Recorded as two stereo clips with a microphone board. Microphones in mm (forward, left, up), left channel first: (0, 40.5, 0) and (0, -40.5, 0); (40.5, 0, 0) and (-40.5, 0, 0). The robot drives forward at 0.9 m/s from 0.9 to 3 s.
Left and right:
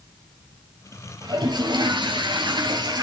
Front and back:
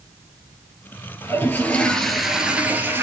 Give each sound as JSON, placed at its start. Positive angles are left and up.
{"t": 1.2, "sound": "a toilet flushing", "azimuth_deg": -60, "distance_m": 1.7}